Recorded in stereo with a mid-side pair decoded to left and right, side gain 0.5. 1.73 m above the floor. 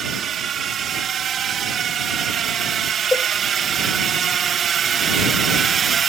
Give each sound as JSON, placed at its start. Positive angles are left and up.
{"t": 0.0, "sound": "a drone", "azimuth_deg": -50}
{"t": 3.1, "sound": "a cowbell", "azimuth_deg": 20}